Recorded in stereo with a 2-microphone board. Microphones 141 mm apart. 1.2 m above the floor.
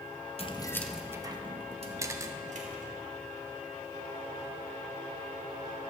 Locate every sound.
0.4 s keys jangling: 40° left (ahead or behind), 0.6 m; by 2.9 s 60° right (ahead or behind), 1.8 m
2.0 s a camera shutter: 20° right (ahead or behind), 0.5 m